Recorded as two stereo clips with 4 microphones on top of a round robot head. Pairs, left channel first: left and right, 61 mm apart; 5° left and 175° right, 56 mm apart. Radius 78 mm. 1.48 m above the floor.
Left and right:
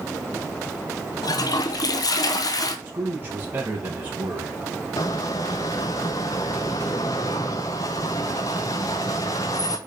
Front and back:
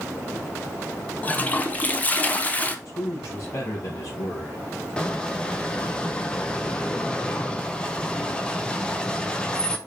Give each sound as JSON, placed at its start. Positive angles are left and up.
{"t": 1.2, "sound": "a toilet flushing", "azimuth_deg": 70, "distance_m": 1.2}
{"t": 2.9, "sound": "a man speaking", "azimuth_deg": -30, "distance_m": 2.5}
{"t": 5.0, "sound": "a squeak", "azimuth_deg": 75, "distance_m": 0.6}